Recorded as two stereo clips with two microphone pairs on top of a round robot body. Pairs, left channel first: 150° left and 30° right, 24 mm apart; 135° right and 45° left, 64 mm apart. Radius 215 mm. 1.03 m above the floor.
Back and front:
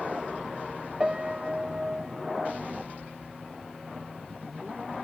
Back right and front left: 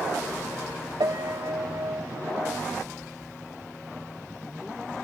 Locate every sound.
1.0 s a piano: 40° left, 0.9 m